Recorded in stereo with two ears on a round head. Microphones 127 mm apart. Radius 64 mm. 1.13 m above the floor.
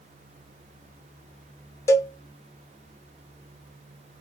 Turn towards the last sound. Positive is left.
turn(degrees=20)  # may be behind; listen again after turning